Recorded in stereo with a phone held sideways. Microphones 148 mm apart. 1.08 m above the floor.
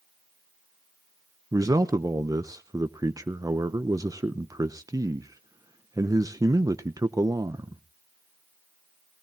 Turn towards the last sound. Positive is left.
turn(degrees=-25)  # may be behind; listen again after turning